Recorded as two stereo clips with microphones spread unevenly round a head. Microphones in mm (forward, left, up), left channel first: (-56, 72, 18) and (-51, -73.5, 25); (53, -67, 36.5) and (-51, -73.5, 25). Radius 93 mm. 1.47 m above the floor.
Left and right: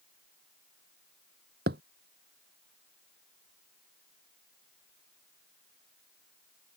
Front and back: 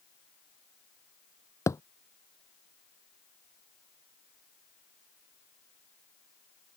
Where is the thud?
55° right.